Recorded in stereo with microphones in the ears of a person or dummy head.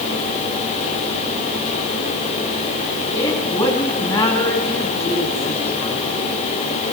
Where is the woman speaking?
30° left (ahead or behind), 3.5 m.